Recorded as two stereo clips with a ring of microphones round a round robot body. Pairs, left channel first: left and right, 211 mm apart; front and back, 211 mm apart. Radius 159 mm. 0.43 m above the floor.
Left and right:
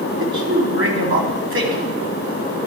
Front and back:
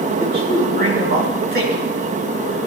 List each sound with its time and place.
0.2 s a man speaking: 130° right, 4 m